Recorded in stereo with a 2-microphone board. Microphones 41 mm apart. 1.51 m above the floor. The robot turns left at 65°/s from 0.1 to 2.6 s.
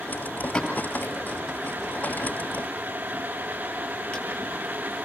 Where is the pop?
15° left (ahead or behind), 9.5 m; by 4.3 s 30° left (ahead or behind), 9.5 m.